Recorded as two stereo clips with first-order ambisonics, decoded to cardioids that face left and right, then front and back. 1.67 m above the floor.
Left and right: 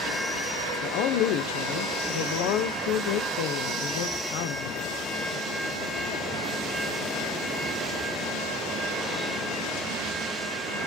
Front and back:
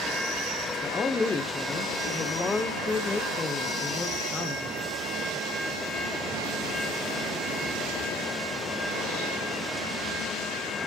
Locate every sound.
0.8 s a woman speaking: 75° left, 1.1 m